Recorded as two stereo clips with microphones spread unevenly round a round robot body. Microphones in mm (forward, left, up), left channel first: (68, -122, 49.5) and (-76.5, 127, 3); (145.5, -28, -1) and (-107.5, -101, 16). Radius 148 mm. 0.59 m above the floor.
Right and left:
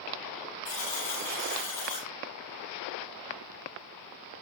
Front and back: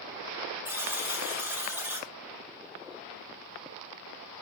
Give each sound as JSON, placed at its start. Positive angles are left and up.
{"t": 0.7, "sound": "a buzzer", "azimuth_deg": -80, "distance_m": 6.5}